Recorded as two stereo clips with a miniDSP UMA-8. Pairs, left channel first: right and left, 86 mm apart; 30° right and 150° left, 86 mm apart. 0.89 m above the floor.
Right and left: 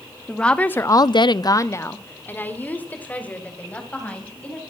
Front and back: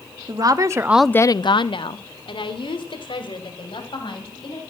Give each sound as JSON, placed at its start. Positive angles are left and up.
{"t": 0.3, "sound": "a woman speaking", "azimuth_deg": -170, "distance_m": 1.4}